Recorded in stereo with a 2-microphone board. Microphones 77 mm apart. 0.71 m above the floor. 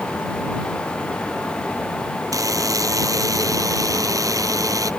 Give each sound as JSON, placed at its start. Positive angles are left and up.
{"t": 2.3, "sound": "a buzzer", "side_deg": -50}